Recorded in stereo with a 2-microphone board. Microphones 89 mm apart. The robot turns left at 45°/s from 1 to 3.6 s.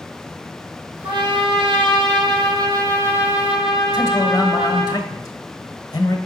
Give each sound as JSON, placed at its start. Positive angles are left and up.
{"t": 1.0, "sound": "a trumpet", "azimuth_deg": -60, "distance_m": 1.7}
{"t": 3.9, "sound": "a man speaking", "side_deg": 45, "distance_m": 1.2}